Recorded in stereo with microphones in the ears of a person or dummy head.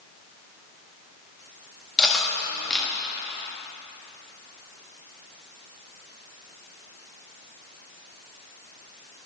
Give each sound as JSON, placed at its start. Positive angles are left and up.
{"t": 2.0, "sound": "cutlery clinking", "side_deg": 0, "distance_m": 1.3}